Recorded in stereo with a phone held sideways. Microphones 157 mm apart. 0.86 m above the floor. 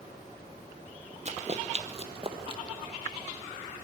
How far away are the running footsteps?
About 1.2 m.